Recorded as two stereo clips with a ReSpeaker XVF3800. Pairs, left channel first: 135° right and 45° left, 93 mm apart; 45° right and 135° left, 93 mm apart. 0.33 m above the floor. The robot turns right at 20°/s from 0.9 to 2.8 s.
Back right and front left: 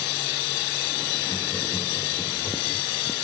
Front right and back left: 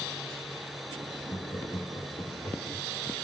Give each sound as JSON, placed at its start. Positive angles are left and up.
{"t": 1.3, "sound": "laughter", "azimuth_deg": -85, "distance_m": 4.0}